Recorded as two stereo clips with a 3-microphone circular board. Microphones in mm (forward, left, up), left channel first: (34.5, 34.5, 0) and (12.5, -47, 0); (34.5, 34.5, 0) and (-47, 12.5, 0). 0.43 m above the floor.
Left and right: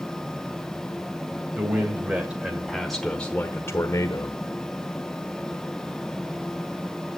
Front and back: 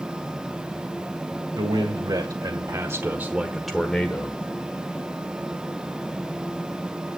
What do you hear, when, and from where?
1.6 s a man speaking: 165° right, 1.9 m; by 4.4 s 75° left, 1.3 m